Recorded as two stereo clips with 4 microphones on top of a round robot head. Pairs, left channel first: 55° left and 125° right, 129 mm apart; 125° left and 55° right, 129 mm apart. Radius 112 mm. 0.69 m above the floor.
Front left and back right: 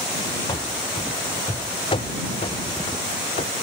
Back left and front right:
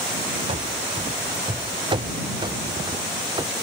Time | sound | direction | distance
0.5 | running footsteps | 5° right | ?